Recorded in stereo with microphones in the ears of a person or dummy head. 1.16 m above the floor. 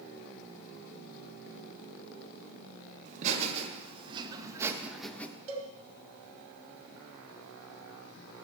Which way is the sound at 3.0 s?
40° right (ahead or behind).